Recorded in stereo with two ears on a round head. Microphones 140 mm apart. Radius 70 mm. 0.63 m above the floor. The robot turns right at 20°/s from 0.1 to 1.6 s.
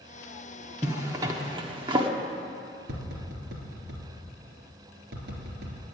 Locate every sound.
0.8 s a zipper: 15° right (ahead or behind), 1.1 m; by 2.1 s 30° right (ahead or behind), 1.1 m
2.9 s tapping: 75° right (ahead or behind), 3 m